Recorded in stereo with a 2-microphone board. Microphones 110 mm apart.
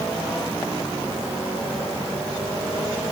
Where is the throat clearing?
No throat clearing in this recording.